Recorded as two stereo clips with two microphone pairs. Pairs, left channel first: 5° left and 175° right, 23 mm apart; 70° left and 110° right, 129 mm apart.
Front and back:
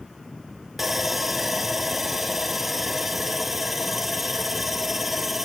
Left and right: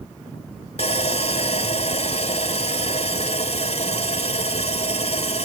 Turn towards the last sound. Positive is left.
turn(degrees=100)